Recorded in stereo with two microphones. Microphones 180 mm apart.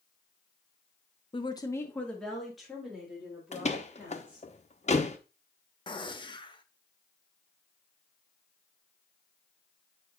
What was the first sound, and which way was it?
A woman speaking, 30° left (ahead or behind).